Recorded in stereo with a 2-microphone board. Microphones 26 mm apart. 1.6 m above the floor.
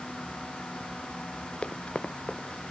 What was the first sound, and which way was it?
Running footsteps, 35° left (ahead or behind).